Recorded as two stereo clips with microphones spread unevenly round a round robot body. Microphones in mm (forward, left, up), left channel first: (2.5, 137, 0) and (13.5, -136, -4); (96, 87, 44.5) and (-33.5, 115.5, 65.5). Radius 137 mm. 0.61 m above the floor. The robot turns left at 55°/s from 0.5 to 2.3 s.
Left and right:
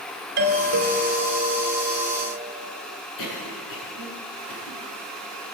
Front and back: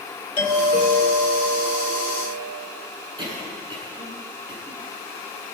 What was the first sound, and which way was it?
A doorbell, 50° right.